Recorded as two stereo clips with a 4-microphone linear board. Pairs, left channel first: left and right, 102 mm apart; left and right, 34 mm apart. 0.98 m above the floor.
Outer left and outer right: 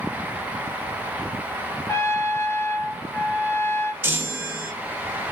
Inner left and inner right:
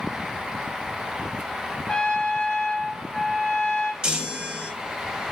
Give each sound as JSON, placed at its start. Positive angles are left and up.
{"t": 1.9, "sound": "a trumpet", "side_deg": 25, "distance_m": 0.6}
{"t": 4.0, "sound": "a chime", "side_deg": -20, "distance_m": 0.8}